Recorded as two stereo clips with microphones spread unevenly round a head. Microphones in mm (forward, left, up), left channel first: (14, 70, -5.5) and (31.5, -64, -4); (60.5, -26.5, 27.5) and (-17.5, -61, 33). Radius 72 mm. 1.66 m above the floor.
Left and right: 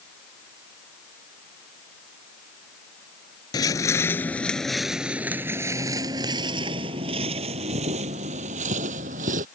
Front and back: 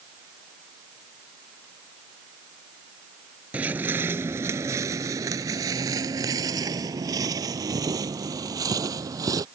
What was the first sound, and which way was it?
Footsteps, 135° left.